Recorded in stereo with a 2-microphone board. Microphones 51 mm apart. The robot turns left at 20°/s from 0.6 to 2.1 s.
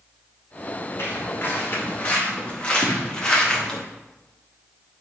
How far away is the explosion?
About 2.5 m.